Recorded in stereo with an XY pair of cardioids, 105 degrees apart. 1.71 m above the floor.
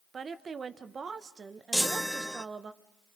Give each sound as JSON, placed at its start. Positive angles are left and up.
{"t": 0.1, "sound": "a woman speaking", "azimuth_deg": -40, "distance_m": 1.5}
{"t": 1.7, "sound": "a chime", "azimuth_deg": 0, "distance_m": 0.7}